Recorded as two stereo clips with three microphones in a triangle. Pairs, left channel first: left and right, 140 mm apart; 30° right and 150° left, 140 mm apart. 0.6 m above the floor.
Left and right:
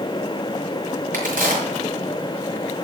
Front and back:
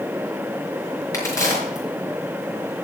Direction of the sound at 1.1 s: 100° right.